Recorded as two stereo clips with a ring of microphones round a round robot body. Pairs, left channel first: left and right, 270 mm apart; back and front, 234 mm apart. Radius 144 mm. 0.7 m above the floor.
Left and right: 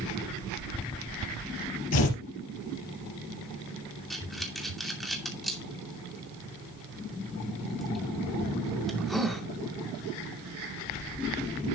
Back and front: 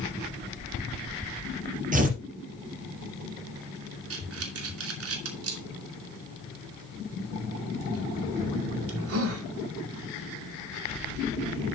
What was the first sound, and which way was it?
Tearing paper, 55° left.